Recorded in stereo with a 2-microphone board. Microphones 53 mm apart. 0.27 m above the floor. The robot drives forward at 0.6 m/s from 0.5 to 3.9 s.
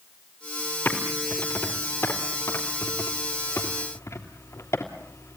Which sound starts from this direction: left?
Typing on a keyboard, at 0.8 s.